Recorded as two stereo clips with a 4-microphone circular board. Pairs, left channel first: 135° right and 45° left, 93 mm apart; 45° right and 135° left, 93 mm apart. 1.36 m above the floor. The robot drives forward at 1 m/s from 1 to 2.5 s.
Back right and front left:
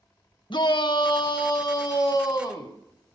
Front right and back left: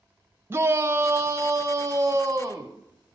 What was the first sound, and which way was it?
A shout, 165° right.